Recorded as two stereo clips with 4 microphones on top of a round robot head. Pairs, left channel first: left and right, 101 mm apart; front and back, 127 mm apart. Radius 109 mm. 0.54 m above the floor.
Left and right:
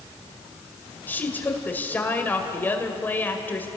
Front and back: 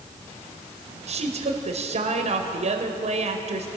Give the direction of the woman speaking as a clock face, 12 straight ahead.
7 o'clock.